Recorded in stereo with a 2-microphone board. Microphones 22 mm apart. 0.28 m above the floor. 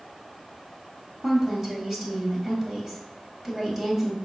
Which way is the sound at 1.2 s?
15° right (ahead or behind).